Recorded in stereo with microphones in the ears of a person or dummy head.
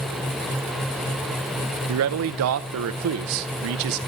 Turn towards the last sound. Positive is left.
turn(degrees=-65)  # may be behind; listen again after turning